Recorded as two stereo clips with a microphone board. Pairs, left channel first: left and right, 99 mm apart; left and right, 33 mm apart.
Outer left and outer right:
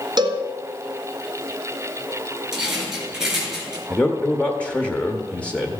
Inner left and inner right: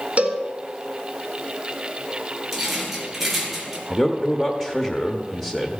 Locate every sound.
0.2 s a cowbell: 45° right (ahead or behind), 1.3 m
2.5 s a rattle: 5° right (ahead or behind), 3 m
3.9 s a man speaking: 10° left (ahead or behind), 0.9 m